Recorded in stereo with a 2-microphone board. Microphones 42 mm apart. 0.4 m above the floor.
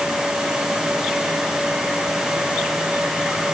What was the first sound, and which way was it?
Only background noise.